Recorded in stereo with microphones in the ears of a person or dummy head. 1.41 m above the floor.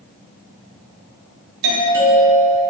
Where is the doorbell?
60° right (ahead or behind), 1.6 m.